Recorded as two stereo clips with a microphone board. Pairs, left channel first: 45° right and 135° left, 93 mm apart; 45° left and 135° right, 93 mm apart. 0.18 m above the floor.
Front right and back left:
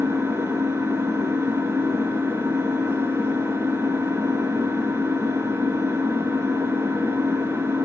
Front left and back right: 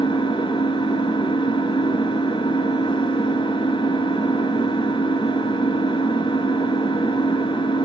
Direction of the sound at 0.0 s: 70° left.